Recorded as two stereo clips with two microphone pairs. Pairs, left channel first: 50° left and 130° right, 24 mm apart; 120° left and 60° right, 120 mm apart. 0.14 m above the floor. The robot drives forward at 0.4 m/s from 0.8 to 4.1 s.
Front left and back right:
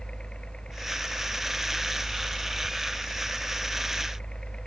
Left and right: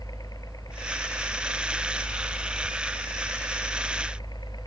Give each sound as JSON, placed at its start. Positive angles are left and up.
{"t": 0.0, "sound": "a helicopter", "azimuth_deg": 70}